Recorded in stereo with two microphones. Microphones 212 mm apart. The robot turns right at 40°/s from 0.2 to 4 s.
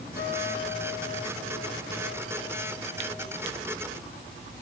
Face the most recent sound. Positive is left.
turn(degrees=-160)